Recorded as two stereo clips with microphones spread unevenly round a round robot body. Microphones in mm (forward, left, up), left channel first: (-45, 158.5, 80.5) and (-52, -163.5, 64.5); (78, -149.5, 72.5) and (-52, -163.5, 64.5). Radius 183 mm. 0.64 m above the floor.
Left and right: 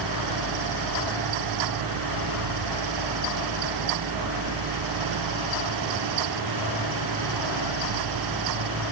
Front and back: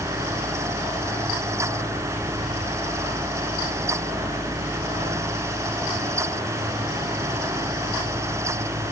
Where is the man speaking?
No man speaking in this recording.